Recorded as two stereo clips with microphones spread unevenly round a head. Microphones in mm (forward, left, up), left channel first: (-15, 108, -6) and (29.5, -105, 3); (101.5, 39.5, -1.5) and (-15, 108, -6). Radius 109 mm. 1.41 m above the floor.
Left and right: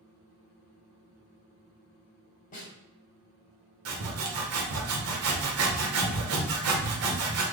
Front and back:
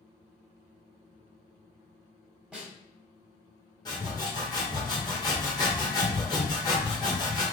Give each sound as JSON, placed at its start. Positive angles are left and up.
{"t": 2.5, "sound": "a snare drum", "azimuth_deg": 70, "distance_m": 1.2}
{"t": 3.9, "sound": "sawing", "azimuth_deg": -105, "distance_m": 0.9}